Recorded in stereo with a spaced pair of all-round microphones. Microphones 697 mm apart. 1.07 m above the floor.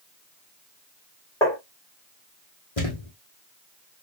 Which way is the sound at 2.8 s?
55° left (ahead or behind).